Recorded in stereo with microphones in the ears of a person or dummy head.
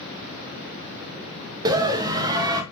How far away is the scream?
About 1.0 m.